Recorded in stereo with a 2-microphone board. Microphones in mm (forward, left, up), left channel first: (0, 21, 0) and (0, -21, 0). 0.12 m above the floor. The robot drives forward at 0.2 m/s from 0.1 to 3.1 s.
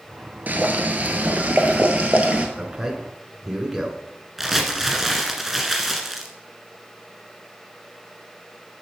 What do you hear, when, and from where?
0.5 s boiling: 45° right (ahead or behind), 0.9 m; by 2.5 s 35° right (ahead or behind), 1.1 m
2.6 s a man speaking: 20° right (ahead or behind), 1.1 m
4.4 s crumpling: 5° right (ahead or behind), 1.6 m